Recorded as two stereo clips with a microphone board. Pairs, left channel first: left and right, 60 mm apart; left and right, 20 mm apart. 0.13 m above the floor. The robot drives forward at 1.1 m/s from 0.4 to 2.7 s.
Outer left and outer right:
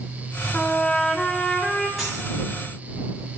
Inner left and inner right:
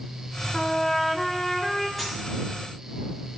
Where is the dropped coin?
Centre (ahead or behind), 4 m.